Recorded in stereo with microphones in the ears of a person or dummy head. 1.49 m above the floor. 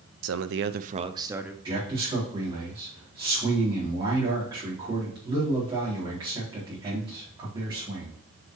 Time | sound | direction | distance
0.2 | a man speaking | 75° right (ahead or behind) | 0.7 m
1.6 | a man speaking | 20° right (ahead or behind) | 4 m